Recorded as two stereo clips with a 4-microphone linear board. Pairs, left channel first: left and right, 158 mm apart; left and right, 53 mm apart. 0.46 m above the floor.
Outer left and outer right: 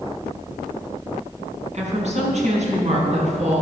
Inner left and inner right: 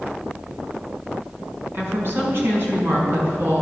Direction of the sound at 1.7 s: 45° right (ahead or behind).